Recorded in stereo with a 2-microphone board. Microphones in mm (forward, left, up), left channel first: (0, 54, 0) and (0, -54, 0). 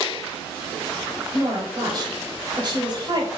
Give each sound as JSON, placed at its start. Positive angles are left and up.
{"t": 1.3, "sound": "a woman speaking", "side_deg": -45, "distance_m": 1.2}